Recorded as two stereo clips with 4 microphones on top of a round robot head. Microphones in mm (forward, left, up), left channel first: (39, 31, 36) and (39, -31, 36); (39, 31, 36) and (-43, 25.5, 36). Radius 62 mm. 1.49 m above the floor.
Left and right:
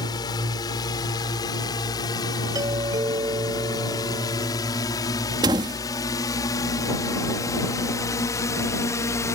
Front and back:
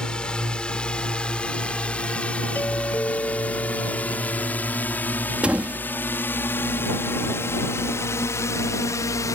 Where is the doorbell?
70° right.